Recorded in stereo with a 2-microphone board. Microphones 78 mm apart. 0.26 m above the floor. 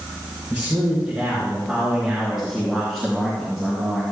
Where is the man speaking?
20° right (ahead or behind), 4 m; by 4.0 s 5° left (ahead or behind), 4 m.